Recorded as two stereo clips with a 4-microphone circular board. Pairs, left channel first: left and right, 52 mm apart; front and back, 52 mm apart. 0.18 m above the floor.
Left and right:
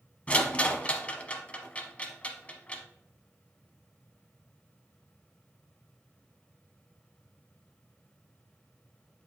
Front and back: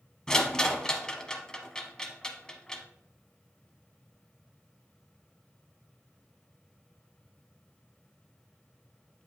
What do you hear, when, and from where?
0.3 s a rattle: 60° left, 0.8 m